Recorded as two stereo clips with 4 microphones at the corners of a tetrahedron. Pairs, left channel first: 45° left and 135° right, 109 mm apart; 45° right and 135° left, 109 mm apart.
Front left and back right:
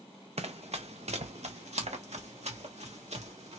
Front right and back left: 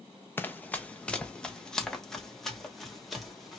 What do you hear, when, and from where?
0.4 s running footsteps: 115° right, 0.9 m; by 3.6 s 135° right, 2.5 m